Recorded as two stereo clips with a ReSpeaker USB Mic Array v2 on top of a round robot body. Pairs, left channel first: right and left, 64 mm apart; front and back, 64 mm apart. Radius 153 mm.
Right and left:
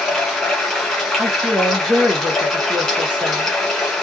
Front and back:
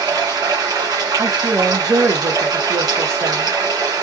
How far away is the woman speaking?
About 1.3 m.